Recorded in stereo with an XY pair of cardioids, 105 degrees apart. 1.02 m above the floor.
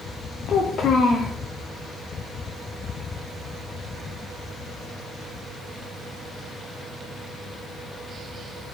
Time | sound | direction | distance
0.5 | a child speaking | 55° left | 0.6 m